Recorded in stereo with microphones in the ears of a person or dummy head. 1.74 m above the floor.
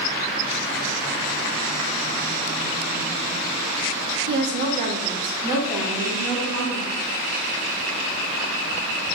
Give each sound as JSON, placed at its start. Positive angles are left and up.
{"t": 4.3, "sound": "a woman speaking", "side_deg": -70, "distance_m": 0.7}